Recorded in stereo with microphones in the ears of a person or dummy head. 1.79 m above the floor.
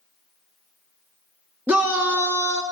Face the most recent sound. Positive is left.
turn(degrees=-10)  # may be behind; listen again after turning